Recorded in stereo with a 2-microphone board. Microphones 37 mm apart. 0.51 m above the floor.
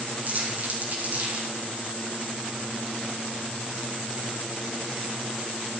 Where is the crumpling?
45° right (ahead or behind), 5.5 m.